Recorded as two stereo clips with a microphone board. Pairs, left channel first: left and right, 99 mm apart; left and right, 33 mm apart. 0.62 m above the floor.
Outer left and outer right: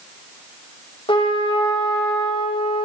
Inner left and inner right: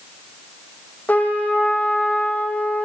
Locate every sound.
1.1 s a trumpet: 55° left (ahead or behind), 6.5 m